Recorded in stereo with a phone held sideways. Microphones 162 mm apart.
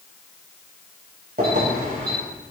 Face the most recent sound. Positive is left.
turn(degrees=-65)  # may be behind; listen again after turning